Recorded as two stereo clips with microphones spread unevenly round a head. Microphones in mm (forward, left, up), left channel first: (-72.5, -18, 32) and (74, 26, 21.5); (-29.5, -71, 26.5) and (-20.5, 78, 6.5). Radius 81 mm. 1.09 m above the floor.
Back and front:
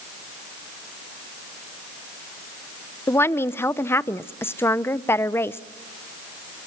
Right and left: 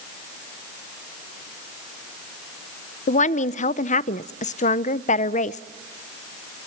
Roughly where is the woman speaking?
Right.